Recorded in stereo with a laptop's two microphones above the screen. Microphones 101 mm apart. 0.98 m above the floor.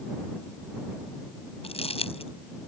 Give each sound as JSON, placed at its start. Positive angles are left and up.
{"t": 1.6, "sound": "crumpling", "side_deg": 70}